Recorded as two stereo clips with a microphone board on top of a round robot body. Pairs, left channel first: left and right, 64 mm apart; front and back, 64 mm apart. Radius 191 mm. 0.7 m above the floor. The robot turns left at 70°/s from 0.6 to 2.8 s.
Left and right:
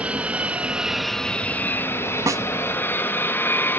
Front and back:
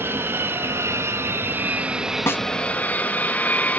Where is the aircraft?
150° right; by 3.8 s 55° left.